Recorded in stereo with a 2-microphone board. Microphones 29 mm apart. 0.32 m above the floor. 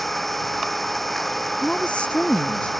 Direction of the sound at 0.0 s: 5° left (ahead or behind).